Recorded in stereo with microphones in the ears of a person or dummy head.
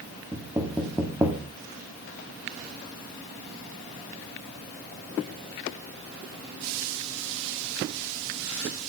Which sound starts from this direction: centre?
Knocking, at 0.3 s.